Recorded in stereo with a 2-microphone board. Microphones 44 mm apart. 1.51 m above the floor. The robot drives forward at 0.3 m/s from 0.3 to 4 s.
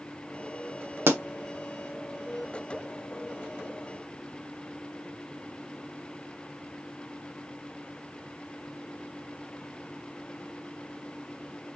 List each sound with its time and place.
1.1 s a pop: 65° right (ahead or behind), 0.8 m; by 1.2 s 60° right (ahead or behind), 0.8 m